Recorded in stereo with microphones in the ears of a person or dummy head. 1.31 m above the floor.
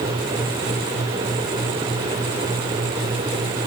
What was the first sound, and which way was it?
Only background noise.